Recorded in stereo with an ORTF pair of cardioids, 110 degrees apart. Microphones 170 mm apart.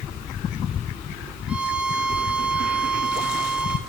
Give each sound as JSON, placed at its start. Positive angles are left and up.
{"t": 1.5, "sound": "a violin", "azimuth_deg": -5, "distance_m": 1.4}